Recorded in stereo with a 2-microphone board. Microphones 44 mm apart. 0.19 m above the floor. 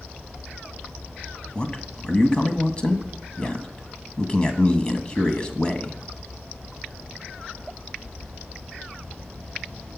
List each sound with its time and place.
1.6 s a man speaking: 20° left (ahead or behind), 1.2 m